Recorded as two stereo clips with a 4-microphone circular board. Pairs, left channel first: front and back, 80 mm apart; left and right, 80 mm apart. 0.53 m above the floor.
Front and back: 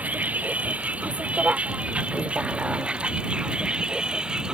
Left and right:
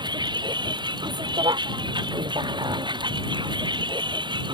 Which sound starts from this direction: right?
A vehicle, at 0.0 s.